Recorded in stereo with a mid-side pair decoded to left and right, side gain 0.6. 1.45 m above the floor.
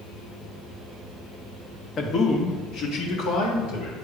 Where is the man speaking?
45° left, 1.3 m; by 4.0 s 80° left, 3 m.